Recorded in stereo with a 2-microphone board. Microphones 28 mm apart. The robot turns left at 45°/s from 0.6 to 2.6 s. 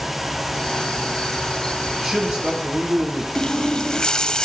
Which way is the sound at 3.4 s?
30° left (ahead or behind).